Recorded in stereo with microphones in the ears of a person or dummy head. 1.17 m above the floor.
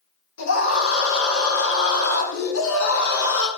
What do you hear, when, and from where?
0.4 s a scream: 70° left (ahead or behind), 3 m; by 3.5 s 80° left, 4 m